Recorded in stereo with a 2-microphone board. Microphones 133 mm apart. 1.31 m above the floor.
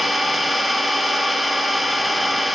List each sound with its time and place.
0.0 s an engine running: centre (ahead or behind), 0.9 m